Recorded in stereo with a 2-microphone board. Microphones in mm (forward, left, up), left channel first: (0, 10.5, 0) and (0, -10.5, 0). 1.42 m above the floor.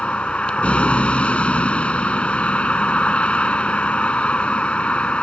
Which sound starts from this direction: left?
A vehicle, at 0.0 s.